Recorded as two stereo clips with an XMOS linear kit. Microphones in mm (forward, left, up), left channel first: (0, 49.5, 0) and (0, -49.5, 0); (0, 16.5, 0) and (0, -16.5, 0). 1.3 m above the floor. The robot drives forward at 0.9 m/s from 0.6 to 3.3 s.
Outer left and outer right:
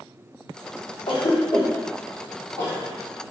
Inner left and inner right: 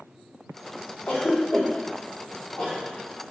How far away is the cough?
About 1.2 m.